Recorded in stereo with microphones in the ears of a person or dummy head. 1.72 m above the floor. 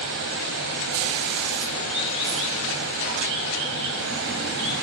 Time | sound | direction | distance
0.0 | running water | 60° right (ahead or behind) | 3 m